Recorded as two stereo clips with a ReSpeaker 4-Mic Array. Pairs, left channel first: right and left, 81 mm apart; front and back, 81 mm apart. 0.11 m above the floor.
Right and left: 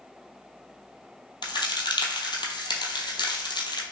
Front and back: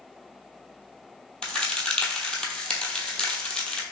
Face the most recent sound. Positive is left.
turn(degrees=-80)